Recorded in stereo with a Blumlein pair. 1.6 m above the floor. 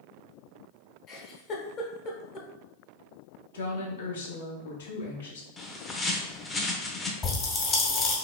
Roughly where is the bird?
Ahead.